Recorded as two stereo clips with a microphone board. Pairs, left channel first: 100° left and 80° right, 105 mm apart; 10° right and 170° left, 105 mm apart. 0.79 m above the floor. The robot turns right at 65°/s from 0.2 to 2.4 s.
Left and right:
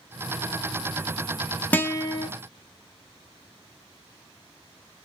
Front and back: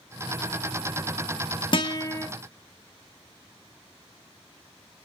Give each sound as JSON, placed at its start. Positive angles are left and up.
{"t": 1.7, "sound": "a guitar", "azimuth_deg": 25, "distance_m": 0.6}